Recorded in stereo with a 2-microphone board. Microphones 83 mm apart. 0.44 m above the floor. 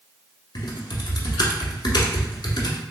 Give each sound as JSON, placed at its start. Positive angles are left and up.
{"t": 0.6, "sound": "typing on a keyboard", "side_deg": 60, "distance_m": 0.8}